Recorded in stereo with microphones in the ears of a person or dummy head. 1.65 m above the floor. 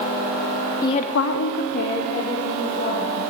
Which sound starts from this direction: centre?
A woman speaking, at 0.8 s.